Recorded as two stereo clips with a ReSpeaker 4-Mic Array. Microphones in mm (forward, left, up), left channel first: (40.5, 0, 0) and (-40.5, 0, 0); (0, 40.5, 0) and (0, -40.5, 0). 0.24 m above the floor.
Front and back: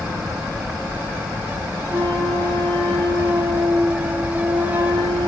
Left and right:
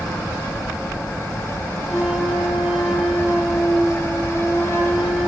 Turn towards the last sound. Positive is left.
turn(degrees=-165)